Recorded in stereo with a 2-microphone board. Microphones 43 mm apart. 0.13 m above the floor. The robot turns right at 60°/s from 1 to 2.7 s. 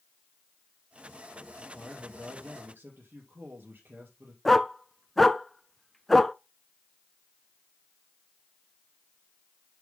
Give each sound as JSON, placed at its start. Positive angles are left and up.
{"t": 1.6, "sound": "a man speaking", "azimuth_deg": 180, "distance_m": 3.5}
{"t": 4.5, "sound": "a dog barking", "side_deg": 5, "distance_m": 0.5}